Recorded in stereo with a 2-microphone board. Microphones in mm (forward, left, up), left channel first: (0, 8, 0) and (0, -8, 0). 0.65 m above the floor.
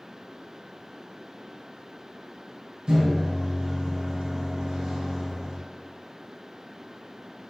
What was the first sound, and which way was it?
A microwave, 65° right (ahead or behind).